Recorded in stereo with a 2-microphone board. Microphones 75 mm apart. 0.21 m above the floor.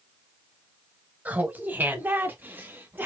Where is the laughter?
20° right (ahead or behind), 1.2 m; by 3.1 s 25° right (ahead or behind), 1.5 m.